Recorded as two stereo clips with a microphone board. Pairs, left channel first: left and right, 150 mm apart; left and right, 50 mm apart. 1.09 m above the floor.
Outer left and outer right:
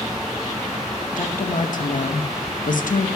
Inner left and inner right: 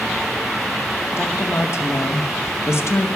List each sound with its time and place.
1.2 s a woman speaking: 60° left (ahead or behind), 0.9 m